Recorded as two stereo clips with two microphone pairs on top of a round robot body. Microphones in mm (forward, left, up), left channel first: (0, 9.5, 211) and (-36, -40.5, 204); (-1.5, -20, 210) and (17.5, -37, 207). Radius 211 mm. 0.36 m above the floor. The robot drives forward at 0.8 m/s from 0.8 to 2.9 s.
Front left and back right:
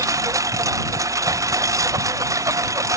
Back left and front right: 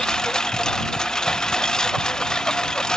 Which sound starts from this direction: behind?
A lawn mower, at 0.0 s.